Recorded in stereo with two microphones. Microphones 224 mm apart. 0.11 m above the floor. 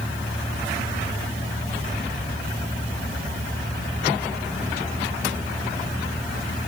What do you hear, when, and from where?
Only background noise.